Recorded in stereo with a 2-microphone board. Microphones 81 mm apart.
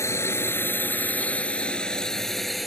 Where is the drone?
35° left (ahead or behind); by 2.7 s centre (ahead or behind).